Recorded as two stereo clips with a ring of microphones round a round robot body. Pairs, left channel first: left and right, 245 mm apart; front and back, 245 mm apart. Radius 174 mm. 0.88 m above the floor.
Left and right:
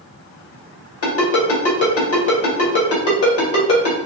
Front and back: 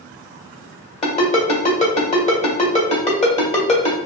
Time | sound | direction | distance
1.0 | a ringtone | 65° left | 1.9 m